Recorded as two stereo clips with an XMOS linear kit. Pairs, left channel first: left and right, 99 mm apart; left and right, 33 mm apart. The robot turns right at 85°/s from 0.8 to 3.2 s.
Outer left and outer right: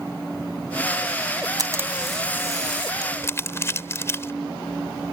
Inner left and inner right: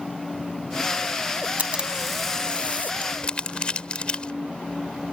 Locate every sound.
1.6 s a camera shutter: 45° right; by 2.9 s 70° left
3.0 s crumpling: 45° left (ahead or behind); by 4.3 s 25° left (ahead or behind)